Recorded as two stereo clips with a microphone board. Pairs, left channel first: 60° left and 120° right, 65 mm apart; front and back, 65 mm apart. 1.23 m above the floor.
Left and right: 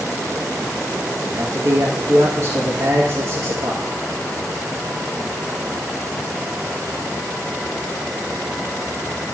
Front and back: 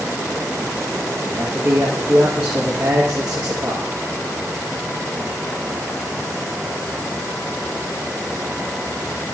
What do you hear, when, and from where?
1.3 s a man speaking: 120° right, 1.7 m